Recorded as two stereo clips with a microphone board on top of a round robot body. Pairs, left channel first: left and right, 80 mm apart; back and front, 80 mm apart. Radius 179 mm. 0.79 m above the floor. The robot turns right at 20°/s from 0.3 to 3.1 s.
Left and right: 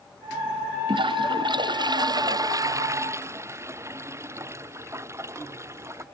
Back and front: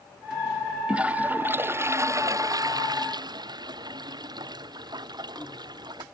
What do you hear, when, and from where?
0.9 s a toilet flushing: 75° right; by 6.0 s 35° right